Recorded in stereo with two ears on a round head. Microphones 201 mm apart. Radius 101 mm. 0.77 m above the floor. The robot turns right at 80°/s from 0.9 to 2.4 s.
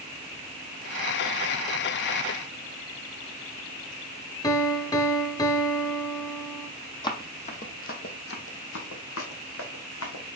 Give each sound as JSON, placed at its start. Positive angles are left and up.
{"t": 4.4, "sound": "a piano", "side_deg": 15, "distance_m": 0.8}
{"t": 7.0, "sound": "running footsteps", "side_deg": 20, "distance_m": 1.3}